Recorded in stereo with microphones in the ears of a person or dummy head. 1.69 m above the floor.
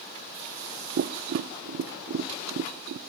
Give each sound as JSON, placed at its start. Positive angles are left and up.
{"t": 1.0, "sound": "tapping", "side_deg": -55, "distance_m": 0.7}